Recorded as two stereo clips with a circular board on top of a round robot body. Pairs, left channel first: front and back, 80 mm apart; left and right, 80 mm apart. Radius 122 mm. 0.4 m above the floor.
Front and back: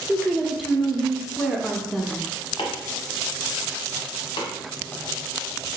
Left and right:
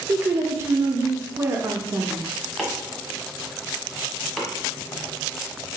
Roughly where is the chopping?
Ahead.